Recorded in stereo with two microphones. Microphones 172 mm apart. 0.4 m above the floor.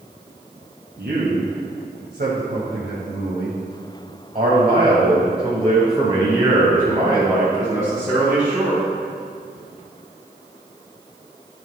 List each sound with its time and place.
1.0 s a man speaking: 65° right (ahead or behind), 3 m; by 8.8 s 10° right (ahead or behind), 4 m